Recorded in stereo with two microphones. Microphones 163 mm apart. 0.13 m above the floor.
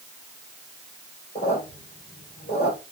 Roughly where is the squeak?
Left.